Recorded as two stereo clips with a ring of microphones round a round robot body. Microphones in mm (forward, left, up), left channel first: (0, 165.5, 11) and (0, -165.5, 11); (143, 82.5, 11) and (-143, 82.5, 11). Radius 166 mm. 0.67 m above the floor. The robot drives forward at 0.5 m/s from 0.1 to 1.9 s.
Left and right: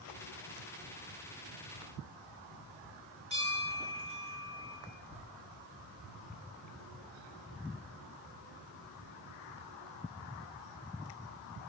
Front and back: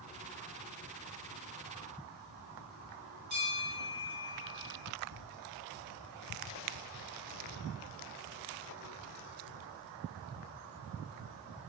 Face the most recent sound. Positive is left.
turn(degrees=-165)